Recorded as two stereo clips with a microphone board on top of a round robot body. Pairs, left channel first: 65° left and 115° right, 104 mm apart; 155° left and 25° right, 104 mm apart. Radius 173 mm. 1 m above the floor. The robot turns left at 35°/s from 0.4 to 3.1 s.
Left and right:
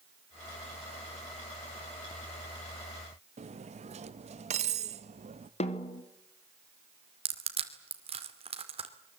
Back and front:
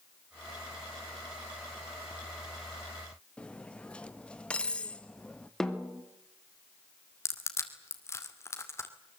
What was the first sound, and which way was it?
Cutlery clinking, 125° right.